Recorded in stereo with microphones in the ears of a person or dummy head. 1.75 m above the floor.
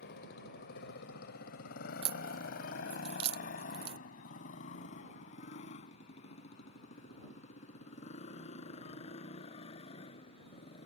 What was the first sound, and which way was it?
A motorcycle, 70° left (ahead or behind).